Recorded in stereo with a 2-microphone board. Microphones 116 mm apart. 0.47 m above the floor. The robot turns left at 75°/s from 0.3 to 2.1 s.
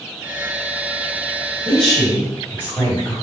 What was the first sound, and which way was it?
A woman speaking, 165° right.